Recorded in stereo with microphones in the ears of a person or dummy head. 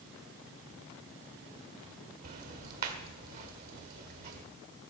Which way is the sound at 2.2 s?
50° right (ahead or behind).